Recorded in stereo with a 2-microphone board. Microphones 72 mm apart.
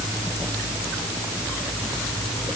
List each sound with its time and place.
Only background noise.